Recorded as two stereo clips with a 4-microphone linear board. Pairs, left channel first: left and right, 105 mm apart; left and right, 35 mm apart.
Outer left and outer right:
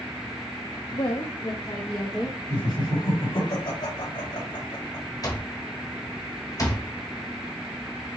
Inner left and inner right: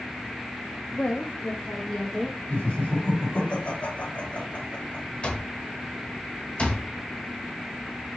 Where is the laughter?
50° left (ahead or behind), 2.5 m.